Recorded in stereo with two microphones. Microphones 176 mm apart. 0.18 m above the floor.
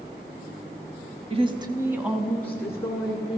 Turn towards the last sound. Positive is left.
turn(degrees=25)  # may be behind; listen again after turning